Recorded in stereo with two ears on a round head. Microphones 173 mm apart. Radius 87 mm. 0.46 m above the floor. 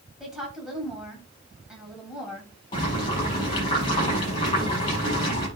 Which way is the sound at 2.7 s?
25° left (ahead or behind).